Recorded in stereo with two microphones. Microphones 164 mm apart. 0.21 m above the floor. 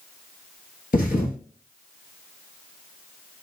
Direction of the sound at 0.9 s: 65° left (ahead or behind).